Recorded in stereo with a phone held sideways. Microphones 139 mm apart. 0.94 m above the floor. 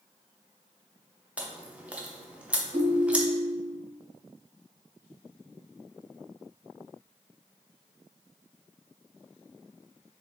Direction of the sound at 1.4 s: 10° right (ahead or behind).